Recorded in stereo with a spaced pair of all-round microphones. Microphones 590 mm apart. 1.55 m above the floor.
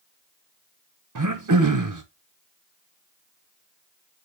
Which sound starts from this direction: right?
Throat clearing, at 1.1 s.